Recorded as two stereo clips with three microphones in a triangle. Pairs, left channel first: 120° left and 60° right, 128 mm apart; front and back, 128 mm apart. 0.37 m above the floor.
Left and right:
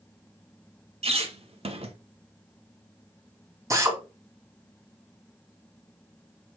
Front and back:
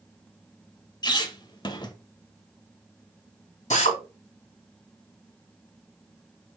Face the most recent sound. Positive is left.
turn(degrees=5)